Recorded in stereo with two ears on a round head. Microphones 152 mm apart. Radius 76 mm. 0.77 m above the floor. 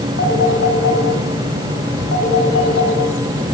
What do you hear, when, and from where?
0.2 s a phone ringing: 80° left, 7 m